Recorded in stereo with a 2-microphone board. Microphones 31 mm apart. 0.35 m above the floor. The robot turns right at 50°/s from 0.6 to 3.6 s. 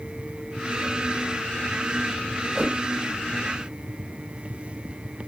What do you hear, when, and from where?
2.5 s a whoosh: 10° right (ahead or behind), 1.9 m; by 2.8 s 15° right (ahead or behind), 1.9 m